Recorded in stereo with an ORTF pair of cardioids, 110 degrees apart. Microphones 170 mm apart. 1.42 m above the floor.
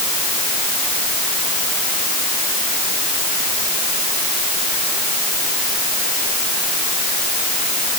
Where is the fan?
No fan in this recording.